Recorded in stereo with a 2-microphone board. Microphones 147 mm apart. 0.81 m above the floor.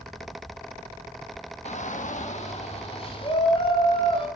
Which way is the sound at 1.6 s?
50° left (ahead or behind).